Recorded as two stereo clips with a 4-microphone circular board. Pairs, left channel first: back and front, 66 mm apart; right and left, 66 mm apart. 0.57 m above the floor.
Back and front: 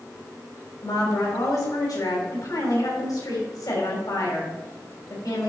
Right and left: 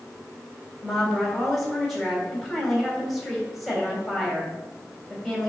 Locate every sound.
0.8 s a woman speaking: straight behind, 2.5 m